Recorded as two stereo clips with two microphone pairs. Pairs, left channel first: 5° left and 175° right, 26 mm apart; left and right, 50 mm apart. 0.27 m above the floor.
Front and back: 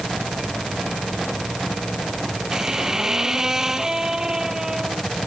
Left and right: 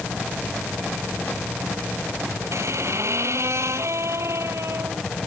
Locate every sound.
2.5 s a squeak: 110° right